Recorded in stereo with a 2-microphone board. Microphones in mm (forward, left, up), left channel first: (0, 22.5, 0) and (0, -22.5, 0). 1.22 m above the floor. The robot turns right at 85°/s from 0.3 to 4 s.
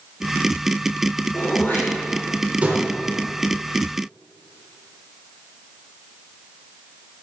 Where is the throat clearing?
80° left, 4 m; by 2.8 s 45° right (ahead or behind), 4 m.